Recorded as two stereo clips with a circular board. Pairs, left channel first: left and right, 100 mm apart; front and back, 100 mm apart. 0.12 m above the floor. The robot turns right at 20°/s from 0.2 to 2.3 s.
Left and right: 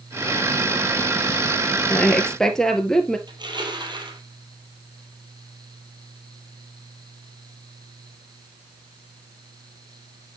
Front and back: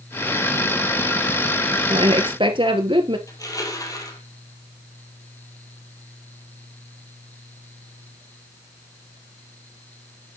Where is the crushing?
50° right, 2.5 m.